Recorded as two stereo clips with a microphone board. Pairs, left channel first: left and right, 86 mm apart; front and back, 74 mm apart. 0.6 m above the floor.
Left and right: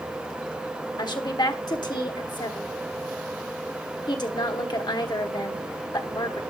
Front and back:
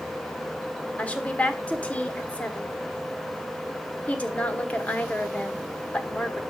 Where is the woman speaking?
70° left, 1.3 m.